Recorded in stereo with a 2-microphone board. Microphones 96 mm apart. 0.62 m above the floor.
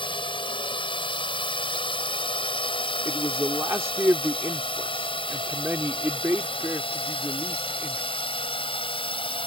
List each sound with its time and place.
0.0 s a drone: 60° left (ahead or behind); by 9.5 s 65° left (ahead or behind)
3.0 s a man speaking: 30° right (ahead or behind)